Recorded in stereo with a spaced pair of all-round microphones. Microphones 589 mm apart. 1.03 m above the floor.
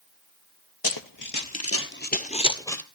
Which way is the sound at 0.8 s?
35° left (ahead or behind).